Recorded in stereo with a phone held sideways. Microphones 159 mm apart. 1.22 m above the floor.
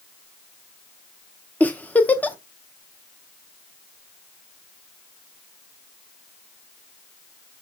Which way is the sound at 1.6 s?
10° left (ahead or behind).